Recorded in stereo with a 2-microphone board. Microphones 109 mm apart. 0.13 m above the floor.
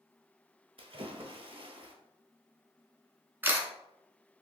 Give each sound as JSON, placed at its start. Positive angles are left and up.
{"t": 0.8, "sound": "a splash", "side_deg": -60, "distance_m": 0.7}
{"t": 3.4, "sound": "a camera shutter", "side_deg": -20, "distance_m": 0.8}